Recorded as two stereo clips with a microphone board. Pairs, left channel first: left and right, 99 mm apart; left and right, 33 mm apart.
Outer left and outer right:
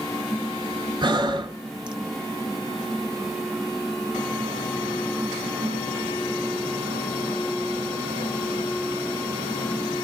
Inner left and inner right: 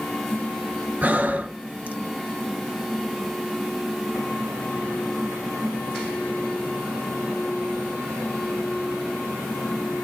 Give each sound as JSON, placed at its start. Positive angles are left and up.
{"t": 1.0, "sound": "breathing", "side_deg": -50, "distance_m": 0.6}